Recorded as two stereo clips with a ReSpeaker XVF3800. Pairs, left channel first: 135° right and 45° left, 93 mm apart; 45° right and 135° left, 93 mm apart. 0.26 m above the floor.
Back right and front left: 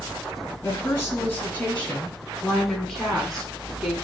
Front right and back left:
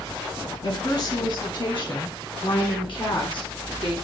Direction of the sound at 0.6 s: 80° right.